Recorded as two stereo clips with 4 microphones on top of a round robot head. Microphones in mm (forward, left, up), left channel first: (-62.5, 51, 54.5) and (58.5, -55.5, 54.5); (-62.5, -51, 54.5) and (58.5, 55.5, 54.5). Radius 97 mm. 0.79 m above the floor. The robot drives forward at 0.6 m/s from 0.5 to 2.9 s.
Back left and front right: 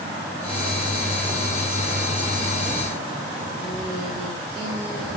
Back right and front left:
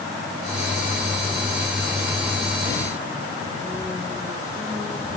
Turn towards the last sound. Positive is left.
No sound to turn to.